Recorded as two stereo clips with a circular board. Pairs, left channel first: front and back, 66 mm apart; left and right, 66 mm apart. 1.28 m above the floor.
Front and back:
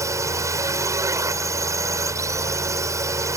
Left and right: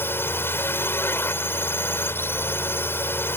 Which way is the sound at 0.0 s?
145° left.